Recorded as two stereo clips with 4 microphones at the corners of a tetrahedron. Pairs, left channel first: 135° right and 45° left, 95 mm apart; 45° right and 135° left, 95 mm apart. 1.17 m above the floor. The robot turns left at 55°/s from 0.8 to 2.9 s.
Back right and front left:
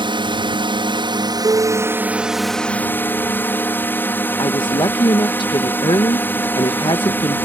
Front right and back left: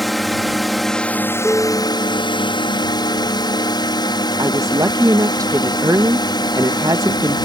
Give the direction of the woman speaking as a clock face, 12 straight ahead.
6 o'clock.